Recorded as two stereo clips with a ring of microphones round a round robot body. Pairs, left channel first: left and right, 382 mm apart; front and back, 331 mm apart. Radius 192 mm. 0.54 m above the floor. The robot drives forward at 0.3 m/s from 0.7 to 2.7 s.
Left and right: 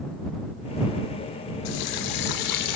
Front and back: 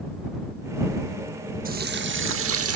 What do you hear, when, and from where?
1.6 s a running tap: 115° left, 0.8 m; by 2.8 s 135° left, 1.0 m